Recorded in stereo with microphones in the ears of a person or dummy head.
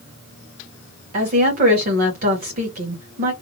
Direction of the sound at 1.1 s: 45° right (ahead or behind).